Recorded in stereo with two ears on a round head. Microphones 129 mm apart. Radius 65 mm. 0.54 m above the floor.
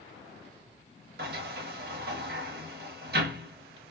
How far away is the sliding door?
About 0.9 m.